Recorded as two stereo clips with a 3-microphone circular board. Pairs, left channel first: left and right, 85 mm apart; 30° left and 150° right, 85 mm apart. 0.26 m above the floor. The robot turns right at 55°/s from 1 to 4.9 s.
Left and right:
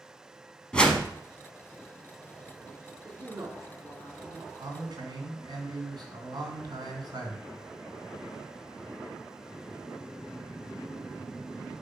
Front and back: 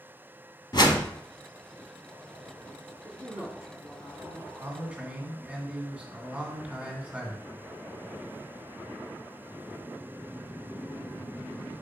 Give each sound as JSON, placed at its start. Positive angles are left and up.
{"t": 0.7, "sound": "a whoosh", "azimuth_deg": 10, "distance_m": 1.0}
{"t": 3.0, "sound": "a man speaking", "azimuth_deg": -95, "distance_m": 2.5}
{"t": 4.6, "sound": "a man speaking", "azimuth_deg": -95, "distance_m": 2.0}